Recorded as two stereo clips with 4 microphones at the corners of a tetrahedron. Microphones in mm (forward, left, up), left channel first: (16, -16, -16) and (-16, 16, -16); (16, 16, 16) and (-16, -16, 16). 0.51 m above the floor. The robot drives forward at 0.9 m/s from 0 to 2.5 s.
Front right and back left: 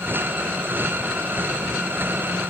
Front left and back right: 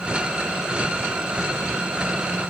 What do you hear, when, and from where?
Only background noise.